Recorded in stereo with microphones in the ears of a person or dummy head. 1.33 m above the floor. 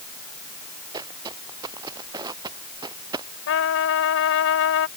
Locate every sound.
0.9 s footsteps: 25° right (ahead or behind); by 3.3 s 20° right (ahead or behind)
3.5 s a trumpet: 75° left (ahead or behind)